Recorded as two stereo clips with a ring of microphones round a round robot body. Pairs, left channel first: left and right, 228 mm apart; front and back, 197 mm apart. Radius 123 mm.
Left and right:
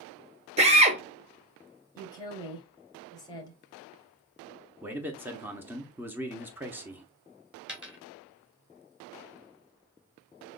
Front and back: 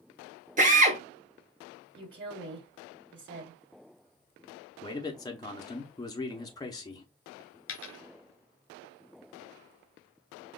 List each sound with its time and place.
0.6 s a drill: 140° right, 1.4 m
1.9 s a woman speaking: 165° left, 2.5 m
4.8 s a man speaking: 25° right, 0.8 m
7.7 s a dropped coin: 5° right, 1.6 m